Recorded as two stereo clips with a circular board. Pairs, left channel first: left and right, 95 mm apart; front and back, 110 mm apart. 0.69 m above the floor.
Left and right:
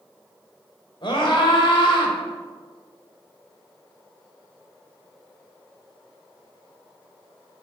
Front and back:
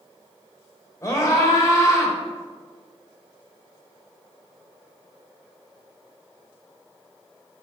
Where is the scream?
60° left, 3 m.